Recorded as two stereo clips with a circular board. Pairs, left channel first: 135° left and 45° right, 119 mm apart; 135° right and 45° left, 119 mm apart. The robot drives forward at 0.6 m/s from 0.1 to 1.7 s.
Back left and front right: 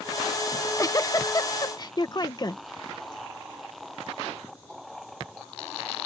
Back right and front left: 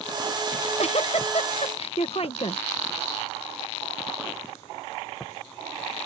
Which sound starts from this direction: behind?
A giggle, at 0.5 s.